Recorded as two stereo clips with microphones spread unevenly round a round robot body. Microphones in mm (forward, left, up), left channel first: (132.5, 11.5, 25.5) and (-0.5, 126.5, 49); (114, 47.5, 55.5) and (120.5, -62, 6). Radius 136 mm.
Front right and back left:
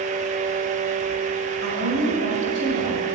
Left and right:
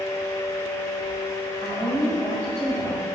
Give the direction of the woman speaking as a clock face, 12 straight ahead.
6 o'clock.